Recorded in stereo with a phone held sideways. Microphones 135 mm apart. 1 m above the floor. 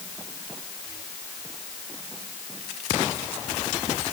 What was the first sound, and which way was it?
Only background noise.